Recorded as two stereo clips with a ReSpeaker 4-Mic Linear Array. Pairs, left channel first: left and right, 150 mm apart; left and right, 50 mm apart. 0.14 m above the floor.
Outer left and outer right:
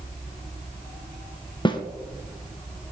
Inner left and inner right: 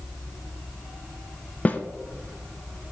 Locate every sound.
1.6 s a snare drum: 30° left (ahead or behind), 0.7 m